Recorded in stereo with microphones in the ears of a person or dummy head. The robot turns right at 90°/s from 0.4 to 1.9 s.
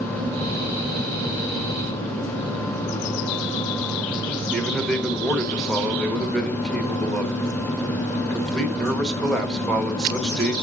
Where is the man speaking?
5° left (ahead or behind), 1.4 m.